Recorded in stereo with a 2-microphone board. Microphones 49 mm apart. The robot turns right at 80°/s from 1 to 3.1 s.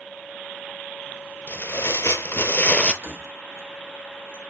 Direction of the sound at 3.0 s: 60° right (ahead or behind).